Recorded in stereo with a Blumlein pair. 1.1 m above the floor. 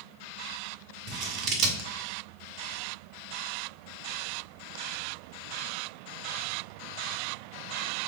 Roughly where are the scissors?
Ahead right.